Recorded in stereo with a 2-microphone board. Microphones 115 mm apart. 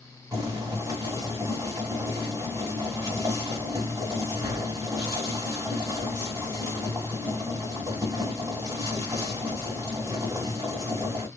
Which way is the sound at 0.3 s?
35° right (ahead or behind).